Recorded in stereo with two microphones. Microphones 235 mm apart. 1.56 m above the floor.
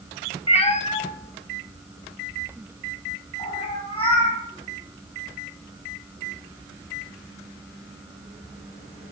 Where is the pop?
No pop in this recording.